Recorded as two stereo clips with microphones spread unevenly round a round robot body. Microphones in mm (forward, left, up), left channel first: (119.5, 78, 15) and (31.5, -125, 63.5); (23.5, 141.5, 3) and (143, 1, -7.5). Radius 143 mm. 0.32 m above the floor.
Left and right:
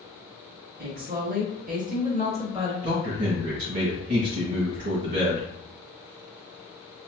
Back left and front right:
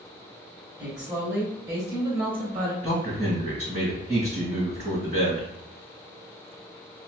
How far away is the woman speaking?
About 1.1 m.